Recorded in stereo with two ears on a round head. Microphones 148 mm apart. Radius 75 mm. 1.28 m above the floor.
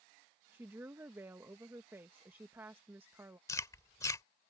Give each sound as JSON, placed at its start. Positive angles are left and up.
{"t": 0.5, "sound": "a woman speaking", "side_deg": -15}
{"t": 3.5, "sound": "chewing", "side_deg": 20}